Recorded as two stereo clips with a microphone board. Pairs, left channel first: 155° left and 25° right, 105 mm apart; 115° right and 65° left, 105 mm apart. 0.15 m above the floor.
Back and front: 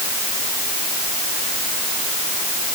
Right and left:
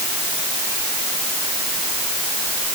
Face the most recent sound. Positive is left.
No sound to turn to.